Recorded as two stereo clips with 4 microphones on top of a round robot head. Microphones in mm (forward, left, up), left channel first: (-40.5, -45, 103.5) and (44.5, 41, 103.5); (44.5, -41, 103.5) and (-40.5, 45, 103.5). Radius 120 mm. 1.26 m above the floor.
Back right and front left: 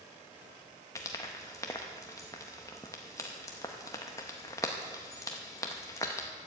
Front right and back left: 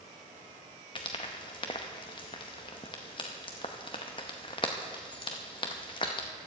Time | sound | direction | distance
0.9 | frying | 80° right | 0.6 m